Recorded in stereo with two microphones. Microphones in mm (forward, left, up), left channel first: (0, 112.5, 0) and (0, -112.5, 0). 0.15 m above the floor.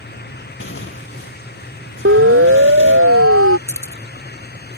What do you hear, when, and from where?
0.6 s tearing paper: 70° left (ahead or behind)
2.0 s a siren: 70° right (ahead or behind); by 3.6 s 75° right (ahead or behind)
3.7 s keys jangling: 10° left (ahead or behind)